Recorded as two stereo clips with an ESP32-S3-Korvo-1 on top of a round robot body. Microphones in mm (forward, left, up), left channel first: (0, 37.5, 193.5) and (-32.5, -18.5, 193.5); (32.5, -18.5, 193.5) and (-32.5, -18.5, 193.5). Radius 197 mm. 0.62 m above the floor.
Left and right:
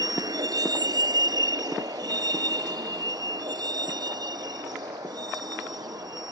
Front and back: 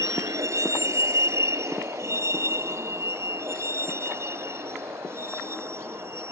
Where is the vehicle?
140° right; by 6.3 s 130° right.